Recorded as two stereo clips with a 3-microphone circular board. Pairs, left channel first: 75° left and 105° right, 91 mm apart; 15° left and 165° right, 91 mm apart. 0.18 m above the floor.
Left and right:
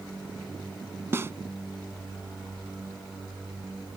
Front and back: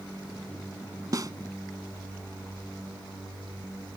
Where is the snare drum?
150° right.